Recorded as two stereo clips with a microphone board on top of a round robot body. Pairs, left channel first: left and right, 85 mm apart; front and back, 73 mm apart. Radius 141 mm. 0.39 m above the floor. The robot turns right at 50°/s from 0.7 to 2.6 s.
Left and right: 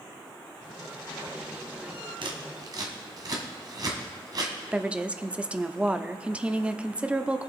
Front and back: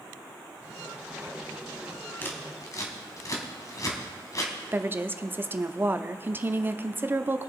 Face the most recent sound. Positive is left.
turn(degrees=-155)